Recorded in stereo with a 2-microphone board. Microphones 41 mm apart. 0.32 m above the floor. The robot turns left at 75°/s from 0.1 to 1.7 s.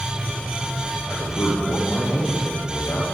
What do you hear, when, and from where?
1.1 s a man speaking: 115° left, 9 m; by 3.0 s 65° left, 9 m